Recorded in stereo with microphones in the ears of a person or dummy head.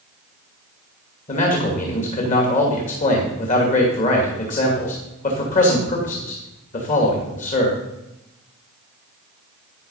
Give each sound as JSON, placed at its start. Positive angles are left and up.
{"t": 1.3, "sound": "a man speaking", "side_deg": 40, "distance_m": 2.5}